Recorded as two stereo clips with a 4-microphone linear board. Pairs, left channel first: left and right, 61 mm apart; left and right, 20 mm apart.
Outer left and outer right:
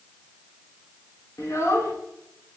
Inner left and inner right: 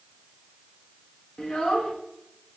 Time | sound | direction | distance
1.4 | a child speaking | 55° left (ahead or behind) | 2.5 m